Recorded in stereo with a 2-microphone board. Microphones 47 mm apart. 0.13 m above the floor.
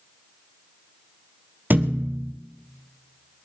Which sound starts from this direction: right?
A thud, at 1.7 s.